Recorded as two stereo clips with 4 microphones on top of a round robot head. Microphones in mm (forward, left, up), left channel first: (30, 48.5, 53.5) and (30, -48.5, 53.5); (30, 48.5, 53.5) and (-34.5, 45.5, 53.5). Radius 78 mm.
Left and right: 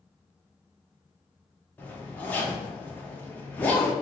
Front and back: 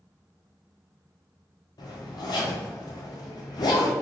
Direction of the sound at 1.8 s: 15° left.